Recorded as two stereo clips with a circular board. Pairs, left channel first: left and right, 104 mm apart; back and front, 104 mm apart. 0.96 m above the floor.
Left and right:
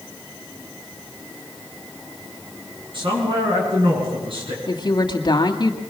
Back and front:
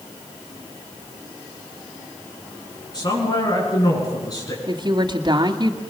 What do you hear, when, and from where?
2.9 s a man speaking: 130° right, 9.5 m; by 4.6 s 125° right, 9 m
4.7 s a woman speaking: 45° left, 2 m